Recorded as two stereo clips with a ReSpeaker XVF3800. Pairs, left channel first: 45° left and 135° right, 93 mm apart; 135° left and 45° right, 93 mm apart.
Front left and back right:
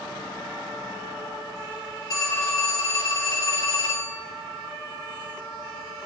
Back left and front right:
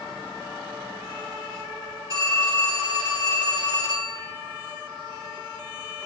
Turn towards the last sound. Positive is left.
turn(degrees=0)